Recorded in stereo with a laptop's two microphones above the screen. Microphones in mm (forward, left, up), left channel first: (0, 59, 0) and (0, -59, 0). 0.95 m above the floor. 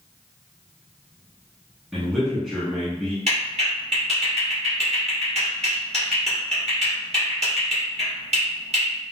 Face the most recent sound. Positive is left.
turn(degrees=-60)  # may be behind; listen again after turning